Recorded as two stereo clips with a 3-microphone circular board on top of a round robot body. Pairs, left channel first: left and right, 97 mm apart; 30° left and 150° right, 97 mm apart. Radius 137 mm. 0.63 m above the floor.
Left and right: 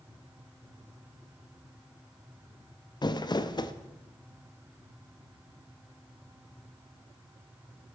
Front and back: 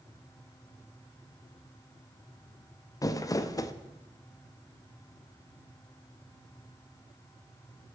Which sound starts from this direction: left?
Crumpling, at 3.0 s.